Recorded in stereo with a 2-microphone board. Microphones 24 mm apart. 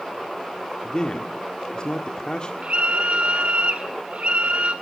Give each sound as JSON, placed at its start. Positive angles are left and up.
{"t": 0.8, "sound": "a man speaking", "side_deg": 40, "distance_m": 1.6}
{"t": 2.6, "sound": "a scream", "side_deg": -60, "distance_m": 2.0}